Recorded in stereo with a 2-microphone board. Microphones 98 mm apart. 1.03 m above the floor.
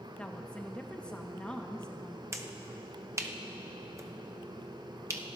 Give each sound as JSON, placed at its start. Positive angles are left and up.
{"t": 0.2, "sound": "a woman speaking", "side_deg": 10, "distance_m": 1.0}
{"t": 2.3, "sound": "a finger snap", "side_deg": -30, "distance_m": 0.7}